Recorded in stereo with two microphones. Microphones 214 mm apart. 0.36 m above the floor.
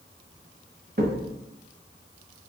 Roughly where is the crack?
Right.